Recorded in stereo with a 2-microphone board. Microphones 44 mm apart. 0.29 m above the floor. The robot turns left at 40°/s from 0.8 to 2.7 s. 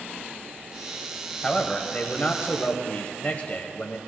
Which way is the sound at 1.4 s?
155° left.